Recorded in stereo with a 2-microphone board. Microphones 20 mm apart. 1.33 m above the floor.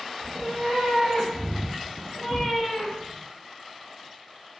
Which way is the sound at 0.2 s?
25° right (ahead or behind).